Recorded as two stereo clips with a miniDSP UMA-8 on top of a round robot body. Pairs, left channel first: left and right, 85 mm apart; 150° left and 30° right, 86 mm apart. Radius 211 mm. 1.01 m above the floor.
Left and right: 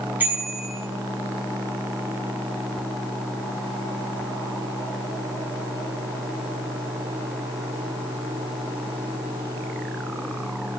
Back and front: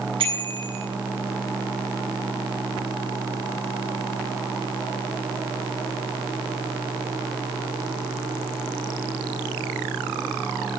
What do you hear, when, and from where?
0.2 s a bicycle bell: 20° right, 7.5 m